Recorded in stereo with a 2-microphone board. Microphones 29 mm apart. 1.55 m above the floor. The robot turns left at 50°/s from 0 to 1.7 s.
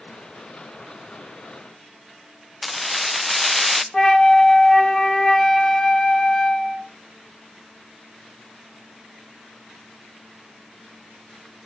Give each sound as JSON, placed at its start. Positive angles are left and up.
{"t": 2.6, "sound": "keys jangling", "side_deg": 5, "distance_m": 0.5}
{"t": 3.9, "sound": "a flute", "side_deg": 20, "distance_m": 0.9}